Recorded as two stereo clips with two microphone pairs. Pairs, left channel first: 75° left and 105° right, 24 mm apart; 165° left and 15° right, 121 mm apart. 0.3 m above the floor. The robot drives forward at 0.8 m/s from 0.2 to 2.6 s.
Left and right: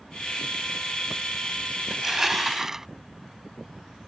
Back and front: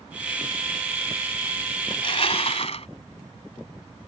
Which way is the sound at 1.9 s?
Straight behind.